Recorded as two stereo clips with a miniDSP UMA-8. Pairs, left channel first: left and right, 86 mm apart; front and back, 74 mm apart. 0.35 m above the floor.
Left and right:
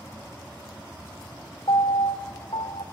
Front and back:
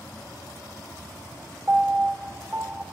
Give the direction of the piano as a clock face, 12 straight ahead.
8 o'clock.